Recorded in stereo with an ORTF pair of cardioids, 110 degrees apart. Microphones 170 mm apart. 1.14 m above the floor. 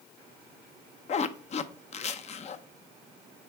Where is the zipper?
40° left, 0.6 m.